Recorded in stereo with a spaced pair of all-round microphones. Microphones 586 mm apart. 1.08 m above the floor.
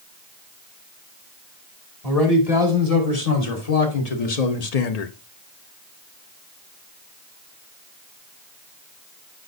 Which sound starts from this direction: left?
A man speaking, at 2.0 s.